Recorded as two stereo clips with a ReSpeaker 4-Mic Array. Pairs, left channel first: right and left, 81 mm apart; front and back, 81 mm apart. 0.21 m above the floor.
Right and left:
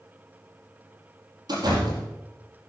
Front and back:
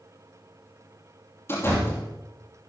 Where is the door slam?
60° left, 5.5 m.